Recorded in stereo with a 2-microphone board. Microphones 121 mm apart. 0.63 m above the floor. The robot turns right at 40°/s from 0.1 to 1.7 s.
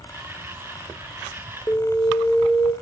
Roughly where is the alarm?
Left.